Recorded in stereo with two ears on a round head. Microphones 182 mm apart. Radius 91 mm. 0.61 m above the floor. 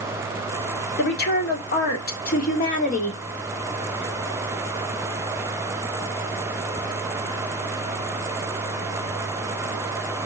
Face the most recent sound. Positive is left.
turn(degrees=35)  # may be behind; listen again after turning